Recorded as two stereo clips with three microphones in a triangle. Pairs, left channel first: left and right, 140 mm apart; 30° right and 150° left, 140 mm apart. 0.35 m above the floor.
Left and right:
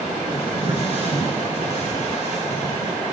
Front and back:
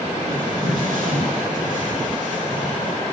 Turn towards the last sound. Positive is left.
turn(degrees=125)